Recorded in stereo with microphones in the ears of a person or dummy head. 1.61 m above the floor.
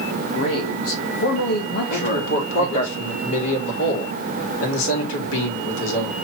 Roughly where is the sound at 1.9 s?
Left.